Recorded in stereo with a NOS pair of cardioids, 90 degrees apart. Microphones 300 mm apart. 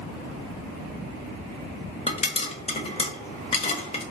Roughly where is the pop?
Ahead.